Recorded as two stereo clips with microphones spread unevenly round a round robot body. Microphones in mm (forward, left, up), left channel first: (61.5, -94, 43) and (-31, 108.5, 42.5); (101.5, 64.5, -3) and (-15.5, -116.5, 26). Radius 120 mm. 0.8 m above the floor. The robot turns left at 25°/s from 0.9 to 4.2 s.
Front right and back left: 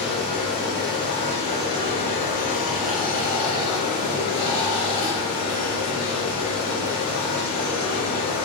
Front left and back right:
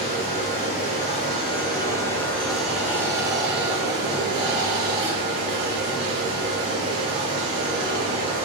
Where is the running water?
5° left, 1.4 m; by 8.4 s 80° right, 1.4 m.